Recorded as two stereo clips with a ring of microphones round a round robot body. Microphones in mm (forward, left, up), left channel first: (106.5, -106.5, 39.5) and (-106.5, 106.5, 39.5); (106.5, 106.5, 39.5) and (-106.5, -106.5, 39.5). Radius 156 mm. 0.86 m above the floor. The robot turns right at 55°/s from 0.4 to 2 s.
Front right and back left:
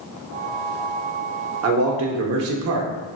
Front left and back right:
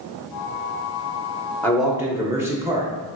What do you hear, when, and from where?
1.6 s a man speaking: 125° left, 0.8 m; by 2.9 s 145° left, 0.8 m